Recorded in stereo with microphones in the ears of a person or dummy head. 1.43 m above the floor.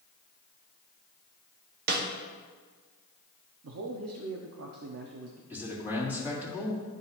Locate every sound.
1.9 s a snare drum: 50° right (ahead or behind), 1.0 m
3.6 s a man speaking: 85° right, 0.6 m
5.5 s a man speaking: 5° right (ahead or behind), 3 m